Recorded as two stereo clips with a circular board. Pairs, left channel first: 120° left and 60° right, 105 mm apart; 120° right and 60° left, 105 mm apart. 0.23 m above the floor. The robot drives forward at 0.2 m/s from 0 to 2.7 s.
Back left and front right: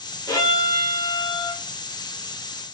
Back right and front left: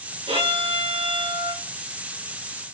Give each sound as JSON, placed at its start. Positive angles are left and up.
{"t": 0.3, "sound": "a violin", "azimuth_deg": 65, "distance_m": 1.7}